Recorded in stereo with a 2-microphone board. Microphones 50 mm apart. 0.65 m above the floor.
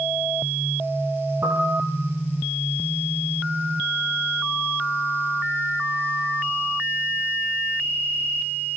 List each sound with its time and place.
1.4 s a piano: 65° right (ahead or behind), 4 m